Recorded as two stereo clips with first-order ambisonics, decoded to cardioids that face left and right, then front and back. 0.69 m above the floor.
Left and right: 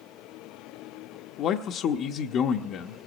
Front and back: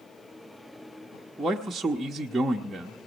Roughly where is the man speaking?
Left.